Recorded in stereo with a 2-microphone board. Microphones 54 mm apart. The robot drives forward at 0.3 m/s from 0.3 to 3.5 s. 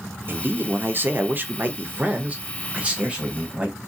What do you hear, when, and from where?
0.3 s a man speaking: 40° right (ahead or behind), 0.5 m; by 3.8 s 20° right (ahead or behind), 0.9 m